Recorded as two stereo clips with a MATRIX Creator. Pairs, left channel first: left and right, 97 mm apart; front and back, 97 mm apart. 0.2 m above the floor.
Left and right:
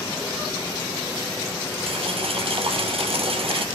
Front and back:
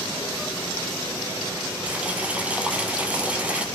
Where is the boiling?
105° right, 2.5 m.